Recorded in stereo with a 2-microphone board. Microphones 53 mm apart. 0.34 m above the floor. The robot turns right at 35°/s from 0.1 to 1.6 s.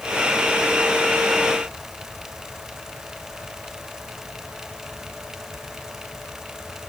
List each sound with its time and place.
Only background noise.